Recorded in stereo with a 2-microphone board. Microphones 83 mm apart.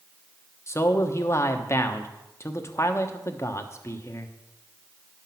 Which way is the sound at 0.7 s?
35° left (ahead or behind).